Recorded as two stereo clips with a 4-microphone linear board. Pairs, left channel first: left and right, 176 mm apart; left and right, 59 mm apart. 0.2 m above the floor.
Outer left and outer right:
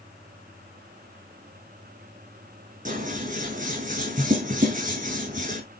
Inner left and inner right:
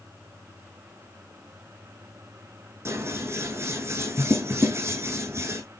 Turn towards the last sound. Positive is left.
turn(degrees=-50)  # may be behind; listen again after turning